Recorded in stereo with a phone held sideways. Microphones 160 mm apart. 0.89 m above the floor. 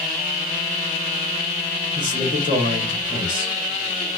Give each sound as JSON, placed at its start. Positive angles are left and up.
{"t": 1.9, "sound": "a man speaking", "side_deg": -50, "distance_m": 2.0}